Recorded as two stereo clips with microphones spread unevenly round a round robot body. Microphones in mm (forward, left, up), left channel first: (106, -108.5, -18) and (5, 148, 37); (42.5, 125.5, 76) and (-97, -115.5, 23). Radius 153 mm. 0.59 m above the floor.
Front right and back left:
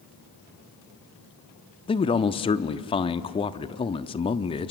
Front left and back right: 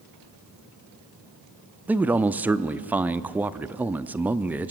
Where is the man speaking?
65° right, 0.6 m.